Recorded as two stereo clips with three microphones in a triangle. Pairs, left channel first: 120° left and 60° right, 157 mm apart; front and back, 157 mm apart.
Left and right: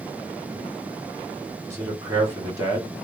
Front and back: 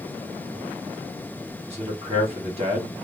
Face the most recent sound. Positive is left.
turn(degrees=-130)